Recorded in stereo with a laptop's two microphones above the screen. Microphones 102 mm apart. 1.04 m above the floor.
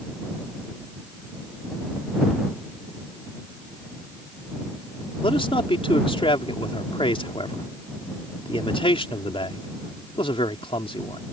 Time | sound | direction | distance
5.2 | a man speaking | 60° left (ahead or behind) | ?